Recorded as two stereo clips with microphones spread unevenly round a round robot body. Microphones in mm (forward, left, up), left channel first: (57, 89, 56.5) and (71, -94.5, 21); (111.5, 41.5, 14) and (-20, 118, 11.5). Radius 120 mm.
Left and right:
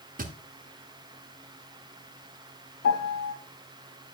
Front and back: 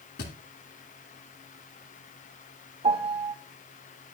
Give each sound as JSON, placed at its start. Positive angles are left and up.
{"t": 0.2, "sound": "a thud", "azimuth_deg": -50, "distance_m": 1.6}
{"t": 2.8, "sound": "a piano", "azimuth_deg": 105, "distance_m": 1.1}